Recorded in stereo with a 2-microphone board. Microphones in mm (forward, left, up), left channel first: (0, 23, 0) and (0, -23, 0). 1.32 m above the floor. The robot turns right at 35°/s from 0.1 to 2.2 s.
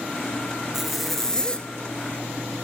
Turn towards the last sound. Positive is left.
turn(degrees=45)